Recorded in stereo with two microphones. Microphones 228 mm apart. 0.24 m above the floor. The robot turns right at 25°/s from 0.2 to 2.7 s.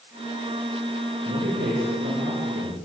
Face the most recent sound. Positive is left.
turn(degrees=-90)